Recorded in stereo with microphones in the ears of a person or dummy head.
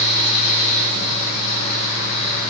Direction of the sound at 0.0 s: 40° left (ahead or behind).